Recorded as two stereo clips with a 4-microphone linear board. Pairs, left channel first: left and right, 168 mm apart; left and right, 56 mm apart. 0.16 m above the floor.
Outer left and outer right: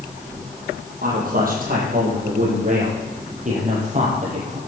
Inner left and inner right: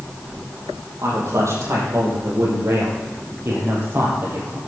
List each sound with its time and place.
1.0 s a man speaking: 60° right (ahead or behind), 6 m; by 4.6 s 45° right (ahead or behind), 6 m